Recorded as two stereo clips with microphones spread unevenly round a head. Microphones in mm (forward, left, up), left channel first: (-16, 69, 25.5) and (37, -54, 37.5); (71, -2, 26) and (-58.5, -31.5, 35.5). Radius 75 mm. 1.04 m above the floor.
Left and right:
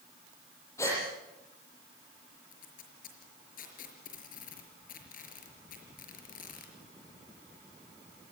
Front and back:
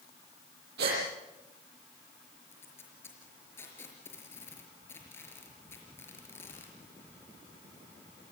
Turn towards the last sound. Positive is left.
turn(degrees=90)